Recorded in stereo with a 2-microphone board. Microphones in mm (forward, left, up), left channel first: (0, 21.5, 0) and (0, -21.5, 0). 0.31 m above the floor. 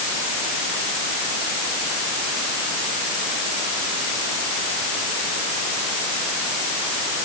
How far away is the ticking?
I don't hear ticking.